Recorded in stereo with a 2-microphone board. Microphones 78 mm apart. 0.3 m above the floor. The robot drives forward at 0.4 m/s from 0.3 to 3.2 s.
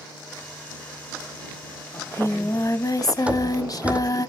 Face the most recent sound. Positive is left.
turn(degrees=-15)  # may be behind; listen again after turning